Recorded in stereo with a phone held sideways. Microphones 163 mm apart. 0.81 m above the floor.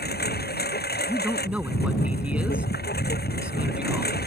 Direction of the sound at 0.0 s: 75° left (ahead or behind).